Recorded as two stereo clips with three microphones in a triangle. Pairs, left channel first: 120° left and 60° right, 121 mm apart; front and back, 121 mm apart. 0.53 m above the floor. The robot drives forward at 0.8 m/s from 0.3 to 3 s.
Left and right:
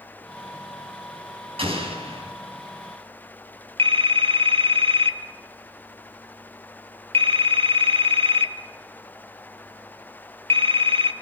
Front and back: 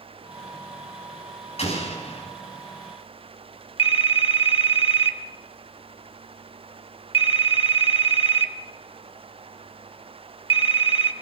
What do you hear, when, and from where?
1.6 s an explosion: 25° right, 5 m
3.8 s a phone ringing: 30° right, 1.0 m